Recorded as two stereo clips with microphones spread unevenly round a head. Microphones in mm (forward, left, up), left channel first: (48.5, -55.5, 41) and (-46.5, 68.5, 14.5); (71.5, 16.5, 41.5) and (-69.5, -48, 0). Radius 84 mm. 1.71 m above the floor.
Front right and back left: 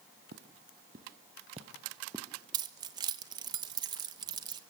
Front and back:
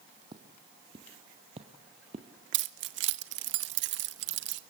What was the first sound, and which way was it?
Footsteps, 130° left.